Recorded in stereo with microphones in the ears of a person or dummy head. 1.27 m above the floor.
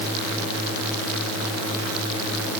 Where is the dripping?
I don't hear dripping.